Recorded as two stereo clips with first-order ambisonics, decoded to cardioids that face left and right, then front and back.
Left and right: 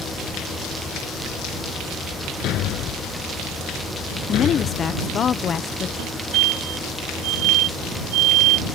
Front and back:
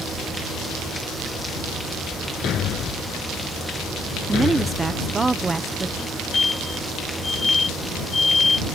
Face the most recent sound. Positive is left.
turn(degrees=-80)